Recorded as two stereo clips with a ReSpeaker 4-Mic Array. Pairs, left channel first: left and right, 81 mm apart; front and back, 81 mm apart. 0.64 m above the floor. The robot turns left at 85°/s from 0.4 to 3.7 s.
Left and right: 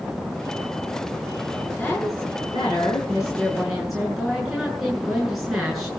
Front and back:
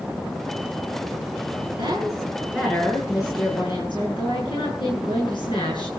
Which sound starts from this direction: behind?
A woman speaking, at 1.8 s.